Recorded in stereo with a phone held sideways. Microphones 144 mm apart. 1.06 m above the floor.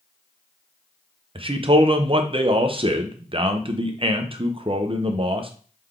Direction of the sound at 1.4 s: 40° right (ahead or behind).